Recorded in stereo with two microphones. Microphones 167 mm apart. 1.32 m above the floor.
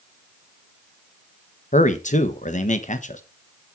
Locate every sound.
1.7 s a man speaking: 50° left (ahead or behind), 1.3 m